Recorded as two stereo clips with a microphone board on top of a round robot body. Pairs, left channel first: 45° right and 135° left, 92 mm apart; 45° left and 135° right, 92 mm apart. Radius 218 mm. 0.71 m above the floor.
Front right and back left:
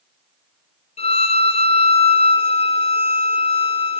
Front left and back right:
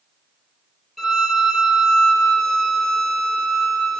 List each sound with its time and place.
1.0 s a violin: 45° right, 0.7 m